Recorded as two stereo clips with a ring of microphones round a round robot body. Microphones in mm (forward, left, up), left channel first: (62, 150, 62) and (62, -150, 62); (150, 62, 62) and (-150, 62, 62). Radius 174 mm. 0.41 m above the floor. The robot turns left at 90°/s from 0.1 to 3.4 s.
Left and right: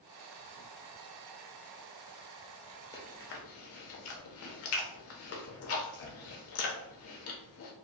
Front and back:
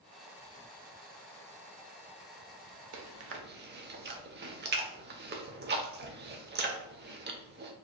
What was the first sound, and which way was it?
Chewing, 170° left.